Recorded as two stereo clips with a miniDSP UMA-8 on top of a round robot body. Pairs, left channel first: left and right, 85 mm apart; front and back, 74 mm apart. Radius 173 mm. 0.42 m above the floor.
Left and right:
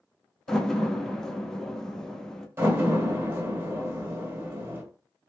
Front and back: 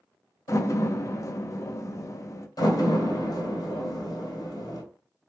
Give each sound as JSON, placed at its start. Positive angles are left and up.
{"t": 0.5, "sound": "a door slam", "azimuth_deg": 10, "distance_m": 0.8}
{"t": 2.6, "sound": "a door slam", "azimuth_deg": -25, "distance_m": 1.4}